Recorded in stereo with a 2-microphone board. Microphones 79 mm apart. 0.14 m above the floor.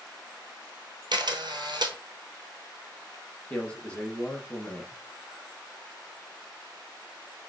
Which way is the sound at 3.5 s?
15° left (ahead or behind).